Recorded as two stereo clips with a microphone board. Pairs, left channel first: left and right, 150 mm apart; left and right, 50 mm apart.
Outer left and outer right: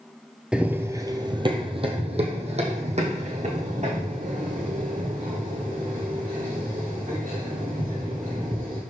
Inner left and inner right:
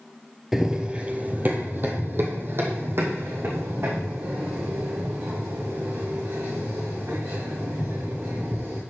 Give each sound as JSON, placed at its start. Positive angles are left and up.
{"t": 0.5, "sound": "running footsteps", "side_deg": -5, "distance_m": 0.6}